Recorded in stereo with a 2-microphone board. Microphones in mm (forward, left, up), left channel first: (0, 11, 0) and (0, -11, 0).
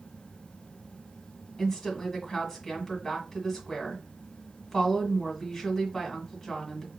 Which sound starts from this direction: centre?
A woman speaking, at 1.6 s.